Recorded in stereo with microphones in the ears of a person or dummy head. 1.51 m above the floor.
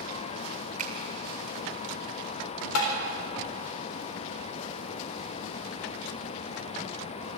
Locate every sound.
0.8 s a finger snap: 45° right (ahead or behind), 2.0 m
2.8 s tapping: 85° left, 4 m